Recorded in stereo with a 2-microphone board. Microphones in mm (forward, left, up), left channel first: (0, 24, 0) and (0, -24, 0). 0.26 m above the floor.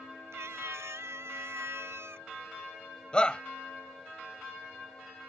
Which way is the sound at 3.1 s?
20° left (ahead or behind).